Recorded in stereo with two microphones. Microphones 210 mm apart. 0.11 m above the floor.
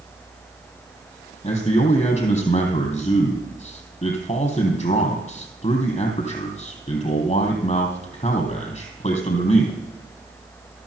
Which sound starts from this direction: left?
A man speaking, at 1.4 s.